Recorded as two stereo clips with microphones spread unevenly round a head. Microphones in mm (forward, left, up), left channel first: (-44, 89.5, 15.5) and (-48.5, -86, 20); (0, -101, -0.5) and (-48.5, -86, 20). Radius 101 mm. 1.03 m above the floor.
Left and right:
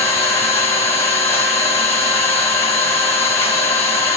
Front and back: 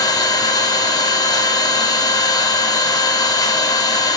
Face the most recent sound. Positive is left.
turn(degrees=10)